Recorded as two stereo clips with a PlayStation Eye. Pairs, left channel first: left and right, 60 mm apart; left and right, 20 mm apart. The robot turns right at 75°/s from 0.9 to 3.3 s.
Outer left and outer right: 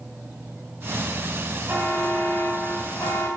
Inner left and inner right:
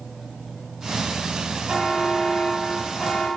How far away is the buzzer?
About 6.5 m.